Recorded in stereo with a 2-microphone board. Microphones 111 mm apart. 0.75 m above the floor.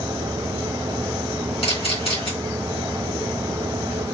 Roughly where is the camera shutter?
Left.